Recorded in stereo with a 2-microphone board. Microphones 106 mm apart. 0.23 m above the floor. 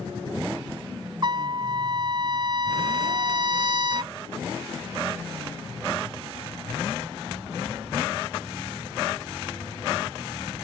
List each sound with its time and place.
1.2 s a trumpet: 45° right (ahead or behind)